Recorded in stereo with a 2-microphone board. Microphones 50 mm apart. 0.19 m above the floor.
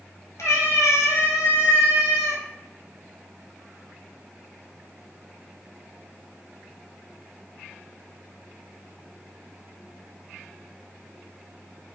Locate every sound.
0.4 s a cat meowing: 70° left (ahead or behind), 1.1 m